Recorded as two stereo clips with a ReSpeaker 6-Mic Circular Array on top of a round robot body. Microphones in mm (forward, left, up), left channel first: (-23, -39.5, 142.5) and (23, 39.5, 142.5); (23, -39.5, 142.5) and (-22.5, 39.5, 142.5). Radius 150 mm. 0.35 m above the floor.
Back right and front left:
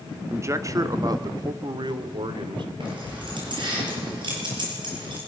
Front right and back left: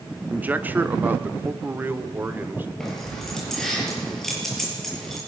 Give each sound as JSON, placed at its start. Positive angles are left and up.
{"t": 0.3, "sound": "a man speaking", "azimuth_deg": 70, "distance_m": 1.3}
{"t": 2.8, "sound": "keys jangling", "azimuth_deg": 25, "distance_m": 7.0}